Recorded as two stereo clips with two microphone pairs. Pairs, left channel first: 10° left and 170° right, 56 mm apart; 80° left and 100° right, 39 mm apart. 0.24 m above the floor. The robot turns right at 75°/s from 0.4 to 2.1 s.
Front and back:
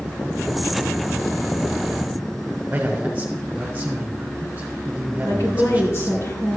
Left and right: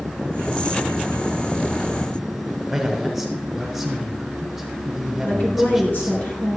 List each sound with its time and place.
2.7 s a man speaking: 170° left, 1.4 m
5.2 s a woman speaking: 45° left, 3.5 m